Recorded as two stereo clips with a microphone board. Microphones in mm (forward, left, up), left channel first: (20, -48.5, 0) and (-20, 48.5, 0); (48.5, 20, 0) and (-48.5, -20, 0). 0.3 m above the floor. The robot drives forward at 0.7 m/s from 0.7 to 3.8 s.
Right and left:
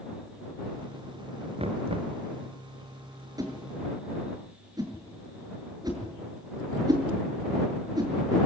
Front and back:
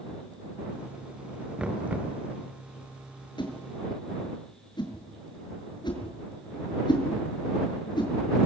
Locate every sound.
1.6 s knocking: 125° left, 3 m; by 2.1 s 130° left, 3 m
3.4 s a whoosh: 60° left, 6.5 m; by 8.5 s 65° left, 6 m